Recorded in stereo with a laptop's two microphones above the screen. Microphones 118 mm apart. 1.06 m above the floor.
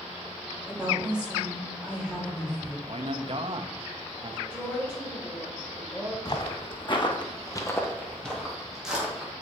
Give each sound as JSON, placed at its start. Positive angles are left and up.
{"t": 0.7, "sound": "a woman speaking", "side_deg": -5, "distance_m": 2.5}
{"t": 2.9, "sound": "a man speaking", "side_deg": -45, "distance_m": 0.8}
{"t": 4.5, "sound": "a woman speaking", "side_deg": 15, "distance_m": 4.5}
{"t": 6.2, "sound": "footsteps", "side_deg": 40, "distance_m": 2.0}